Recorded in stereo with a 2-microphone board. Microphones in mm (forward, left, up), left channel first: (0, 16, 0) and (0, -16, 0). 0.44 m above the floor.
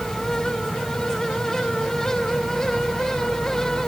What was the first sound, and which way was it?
Only background noise.